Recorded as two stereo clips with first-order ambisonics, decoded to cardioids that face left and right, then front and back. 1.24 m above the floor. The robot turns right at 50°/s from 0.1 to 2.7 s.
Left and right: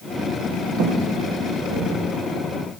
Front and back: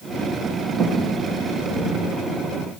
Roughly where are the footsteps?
Right.